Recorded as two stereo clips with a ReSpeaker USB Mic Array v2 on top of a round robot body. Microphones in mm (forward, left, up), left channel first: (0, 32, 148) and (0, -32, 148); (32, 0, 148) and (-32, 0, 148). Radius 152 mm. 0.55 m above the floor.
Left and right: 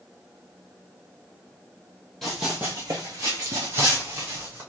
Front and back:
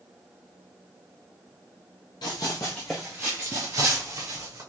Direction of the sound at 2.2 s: 5° left.